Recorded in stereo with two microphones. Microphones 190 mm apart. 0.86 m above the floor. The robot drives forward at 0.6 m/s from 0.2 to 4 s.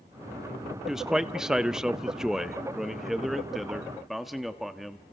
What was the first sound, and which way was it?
A man speaking, centre (ahead or behind).